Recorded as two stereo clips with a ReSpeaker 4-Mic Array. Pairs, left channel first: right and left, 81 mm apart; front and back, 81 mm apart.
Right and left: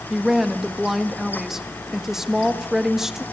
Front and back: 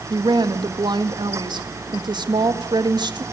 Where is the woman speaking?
175° left, 1.7 m.